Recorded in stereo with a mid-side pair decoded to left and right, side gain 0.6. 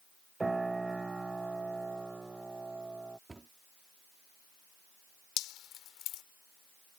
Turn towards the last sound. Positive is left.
turn(degrees=65)